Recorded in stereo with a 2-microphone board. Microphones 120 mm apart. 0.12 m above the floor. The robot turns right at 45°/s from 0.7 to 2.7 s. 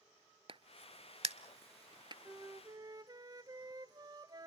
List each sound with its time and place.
0.5 s a crack: 50° right (ahead or behind), 0.6 m; by 2.1 s 40° right (ahead or behind), 0.6 m
2.2 s a flute: 20° right (ahead or behind), 0.5 m; by 4.5 s 35° right (ahead or behind), 0.5 m